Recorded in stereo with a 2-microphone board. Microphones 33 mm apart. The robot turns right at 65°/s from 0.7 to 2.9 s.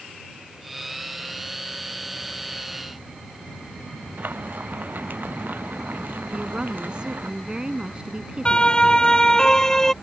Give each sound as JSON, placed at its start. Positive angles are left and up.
{"t": 4.2, "sound": "frying", "side_deg": -60}
{"t": 6.3, "sound": "a woman speaking", "side_deg": -25}
{"t": 8.4, "sound": "a siren", "side_deg": 25}